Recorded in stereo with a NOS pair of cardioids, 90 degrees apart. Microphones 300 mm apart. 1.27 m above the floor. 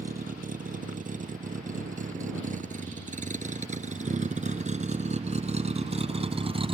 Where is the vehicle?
25° right; by 6.7 s 20° right.